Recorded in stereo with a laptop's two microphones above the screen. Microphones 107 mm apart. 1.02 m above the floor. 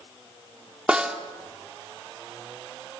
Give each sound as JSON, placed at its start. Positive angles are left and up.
{"t": 0.9, "sound": "a snare drum", "side_deg": -10, "distance_m": 2.5}